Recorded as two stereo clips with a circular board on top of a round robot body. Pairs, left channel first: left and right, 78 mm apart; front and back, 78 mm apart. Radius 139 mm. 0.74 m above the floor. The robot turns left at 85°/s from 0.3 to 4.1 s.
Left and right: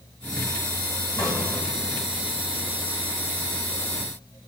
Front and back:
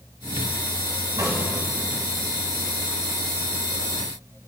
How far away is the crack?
About 4.5 m.